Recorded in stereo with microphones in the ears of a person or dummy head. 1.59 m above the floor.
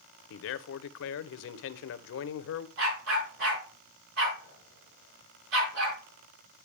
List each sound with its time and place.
0.3 s a man speaking: 65° left (ahead or behind), 0.7 m
2.8 s a dog barking: 60° right (ahead or behind), 5 m